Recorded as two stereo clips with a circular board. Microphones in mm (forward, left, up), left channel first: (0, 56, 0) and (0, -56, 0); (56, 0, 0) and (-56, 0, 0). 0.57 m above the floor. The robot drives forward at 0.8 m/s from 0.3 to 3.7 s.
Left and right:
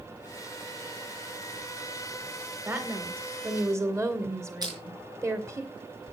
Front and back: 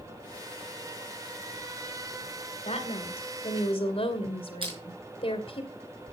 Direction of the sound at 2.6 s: 20° right.